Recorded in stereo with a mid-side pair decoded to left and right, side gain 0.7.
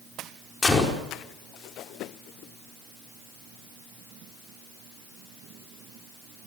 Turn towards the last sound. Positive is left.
turn(degrees=20)